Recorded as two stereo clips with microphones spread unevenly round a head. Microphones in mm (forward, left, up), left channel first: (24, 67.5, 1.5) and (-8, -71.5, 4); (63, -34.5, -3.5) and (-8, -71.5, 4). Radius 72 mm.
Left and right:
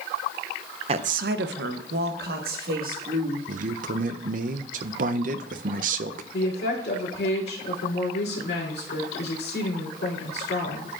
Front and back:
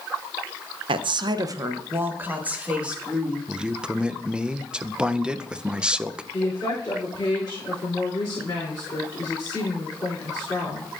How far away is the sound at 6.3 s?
About 3 m.